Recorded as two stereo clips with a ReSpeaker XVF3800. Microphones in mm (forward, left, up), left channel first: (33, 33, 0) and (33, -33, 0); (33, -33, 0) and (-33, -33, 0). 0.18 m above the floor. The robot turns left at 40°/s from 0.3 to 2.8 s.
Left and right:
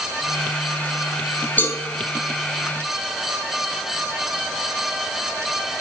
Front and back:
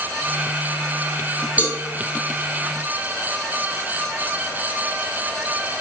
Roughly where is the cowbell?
Behind left.